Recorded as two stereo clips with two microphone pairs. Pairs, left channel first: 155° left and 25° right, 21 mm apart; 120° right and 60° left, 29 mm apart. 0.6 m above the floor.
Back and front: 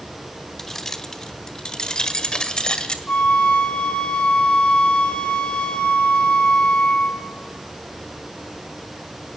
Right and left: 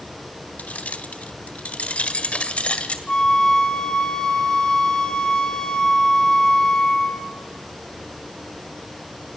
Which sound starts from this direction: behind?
A flute, at 3.1 s.